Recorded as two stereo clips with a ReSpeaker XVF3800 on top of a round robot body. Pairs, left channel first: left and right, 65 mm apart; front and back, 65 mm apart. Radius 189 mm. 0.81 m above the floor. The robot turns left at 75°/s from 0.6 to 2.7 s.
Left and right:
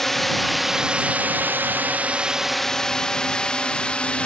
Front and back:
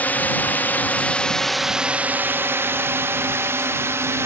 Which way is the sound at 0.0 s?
10° left.